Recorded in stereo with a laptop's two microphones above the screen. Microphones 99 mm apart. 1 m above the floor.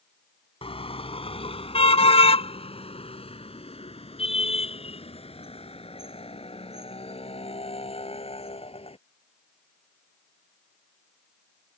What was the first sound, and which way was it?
A car horn, 75° left (ahead or behind).